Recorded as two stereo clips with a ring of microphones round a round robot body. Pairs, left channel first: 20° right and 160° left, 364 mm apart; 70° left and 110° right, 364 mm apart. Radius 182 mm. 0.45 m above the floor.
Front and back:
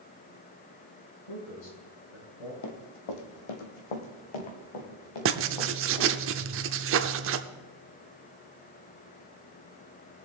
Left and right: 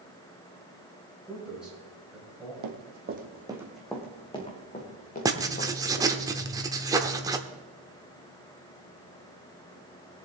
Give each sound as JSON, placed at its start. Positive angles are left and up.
{"t": 1.3, "sound": "a man speaking", "azimuth_deg": -25, "distance_m": 5.5}
{"t": 2.6, "sound": "running footsteps", "azimuth_deg": -70, "distance_m": 1.4}
{"t": 5.2, "sound": "writing", "azimuth_deg": 175, "distance_m": 0.7}